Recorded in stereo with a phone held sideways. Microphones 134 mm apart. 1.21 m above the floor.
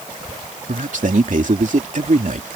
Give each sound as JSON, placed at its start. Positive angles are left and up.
{"t": 0.7, "sound": "a man speaking", "side_deg": -65}